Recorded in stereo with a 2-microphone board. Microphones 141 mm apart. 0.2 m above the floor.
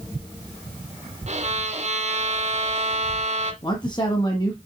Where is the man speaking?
30° left (ahead or behind), 1.6 m.